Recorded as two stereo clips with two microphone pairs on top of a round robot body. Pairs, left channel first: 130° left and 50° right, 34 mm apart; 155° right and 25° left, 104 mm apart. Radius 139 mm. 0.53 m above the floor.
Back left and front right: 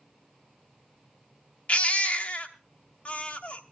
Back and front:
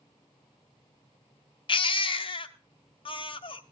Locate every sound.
1.7 s a baby crying: straight behind, 0.9 m